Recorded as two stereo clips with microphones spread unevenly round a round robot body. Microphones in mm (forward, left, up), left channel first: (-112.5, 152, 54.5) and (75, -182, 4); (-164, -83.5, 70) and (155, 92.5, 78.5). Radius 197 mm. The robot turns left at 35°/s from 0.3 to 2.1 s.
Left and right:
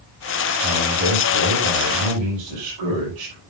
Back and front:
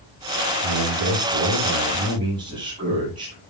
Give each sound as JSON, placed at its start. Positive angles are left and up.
{"t": 0.6, "sound": "a man speaking", "azimuth_deg": 10, "distance_m": 8.5}